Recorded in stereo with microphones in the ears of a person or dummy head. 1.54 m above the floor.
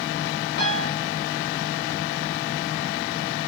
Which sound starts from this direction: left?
A piano, at 0.6 s.